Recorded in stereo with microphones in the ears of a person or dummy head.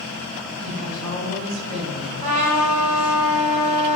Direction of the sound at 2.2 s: 40° right (ahead or behind).